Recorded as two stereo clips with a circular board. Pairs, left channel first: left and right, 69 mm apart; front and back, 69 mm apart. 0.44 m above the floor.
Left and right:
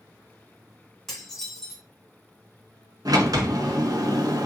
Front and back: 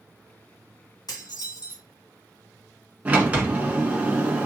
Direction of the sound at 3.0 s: 115° right.